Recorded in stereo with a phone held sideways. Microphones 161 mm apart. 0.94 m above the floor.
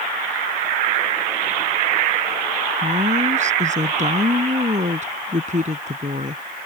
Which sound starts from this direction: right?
A woman speaking, at 2.8 s.